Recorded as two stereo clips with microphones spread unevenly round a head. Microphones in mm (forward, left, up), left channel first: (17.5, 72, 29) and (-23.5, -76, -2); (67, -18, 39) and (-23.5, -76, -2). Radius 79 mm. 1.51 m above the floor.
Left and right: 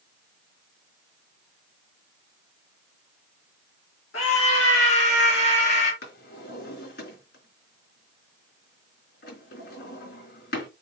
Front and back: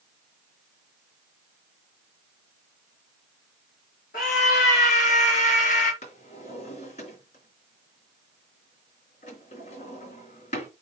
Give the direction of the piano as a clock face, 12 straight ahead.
No piano in this recording.